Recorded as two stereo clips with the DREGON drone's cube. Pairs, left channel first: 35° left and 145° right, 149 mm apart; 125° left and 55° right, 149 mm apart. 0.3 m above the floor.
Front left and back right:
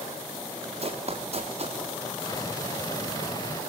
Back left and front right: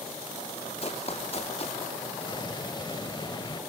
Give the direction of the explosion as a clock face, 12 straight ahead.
9 o'clock.